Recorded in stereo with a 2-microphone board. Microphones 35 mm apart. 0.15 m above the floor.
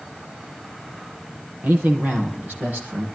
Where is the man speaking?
70° right (ahead or behind), 4 m; by 3.1 s 75° right (ahead or behind), 5.5 m.